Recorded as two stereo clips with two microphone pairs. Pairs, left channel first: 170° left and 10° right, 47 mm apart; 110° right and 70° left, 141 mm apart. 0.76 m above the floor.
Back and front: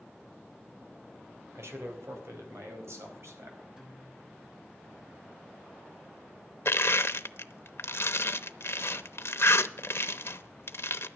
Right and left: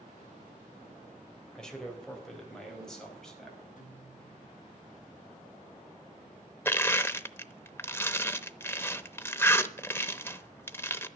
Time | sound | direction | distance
1.6 | a man speaking | 25° right | 3.5 m
3.8 | a guitar | 80° right | 5 m
6.7 | crushing | straight behind | 0.8 m